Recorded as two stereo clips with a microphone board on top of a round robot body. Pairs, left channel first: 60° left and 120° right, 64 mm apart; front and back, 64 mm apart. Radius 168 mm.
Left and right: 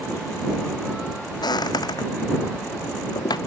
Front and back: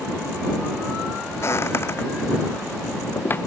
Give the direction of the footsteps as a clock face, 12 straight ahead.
10 o'clock.